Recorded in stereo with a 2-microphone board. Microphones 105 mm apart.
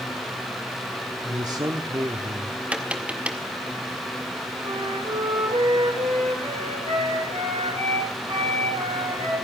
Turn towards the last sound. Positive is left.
turn(degrees=-75)  # may be behind; listen again after turning